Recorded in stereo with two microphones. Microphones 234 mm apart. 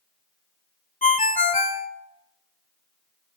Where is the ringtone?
35° left (ahead or behind), 0.6 m.